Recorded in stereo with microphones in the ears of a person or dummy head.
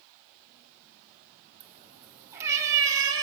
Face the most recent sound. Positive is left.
turn(degrees=-25)  # may be behind; listen again after turning